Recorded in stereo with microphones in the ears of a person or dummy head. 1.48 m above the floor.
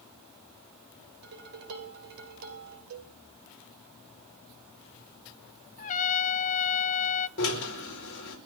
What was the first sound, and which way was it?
Dishes clattering, 55° right (ahead or behind).